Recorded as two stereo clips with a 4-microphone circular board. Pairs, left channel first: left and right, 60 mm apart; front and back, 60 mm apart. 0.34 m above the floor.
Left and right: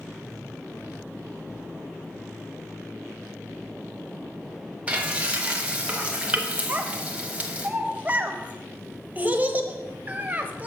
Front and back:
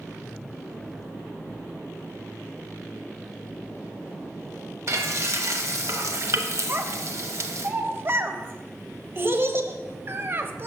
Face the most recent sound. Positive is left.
turn(degrees=-145)